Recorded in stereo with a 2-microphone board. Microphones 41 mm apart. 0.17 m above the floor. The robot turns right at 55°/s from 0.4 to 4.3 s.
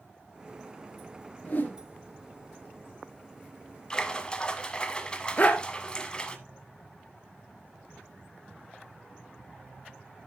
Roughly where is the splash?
Centre.